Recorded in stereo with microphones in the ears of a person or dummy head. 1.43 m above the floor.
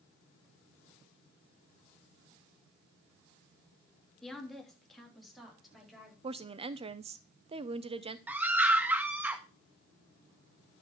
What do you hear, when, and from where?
4.2 s a woman speaking: centre (ahead or behind), 2 m; by 6.1 s 5° right (ahead or behind), 4.5 m
6.2 s a woman speaking: 25° right (ahead or behind), 0.7 m
8.3 s a scream: 5° right (ahead or behind), 1.4 m